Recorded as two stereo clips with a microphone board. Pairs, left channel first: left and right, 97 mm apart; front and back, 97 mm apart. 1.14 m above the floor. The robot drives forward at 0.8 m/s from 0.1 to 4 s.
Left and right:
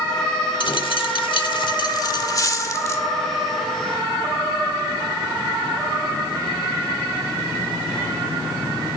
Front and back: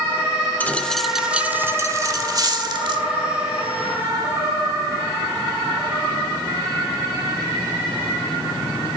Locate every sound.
0.6 s a dropped coin: 70° left, 1.2 m; by 3.0 s 150° left, 2.0 m